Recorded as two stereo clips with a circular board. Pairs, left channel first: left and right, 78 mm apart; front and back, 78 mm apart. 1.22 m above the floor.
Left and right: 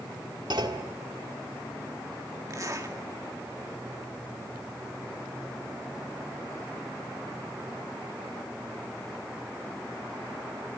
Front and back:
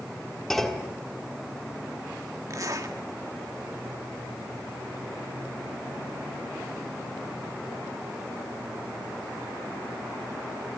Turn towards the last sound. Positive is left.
turn(degrees=-135)